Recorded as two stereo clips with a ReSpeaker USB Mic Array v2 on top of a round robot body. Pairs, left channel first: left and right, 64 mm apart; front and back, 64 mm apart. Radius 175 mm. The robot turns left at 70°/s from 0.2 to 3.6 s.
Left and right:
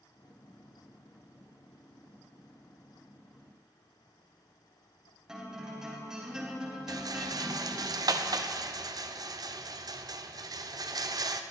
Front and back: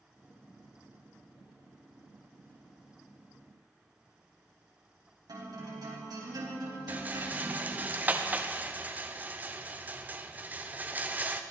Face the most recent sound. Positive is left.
turn(degrees=-115)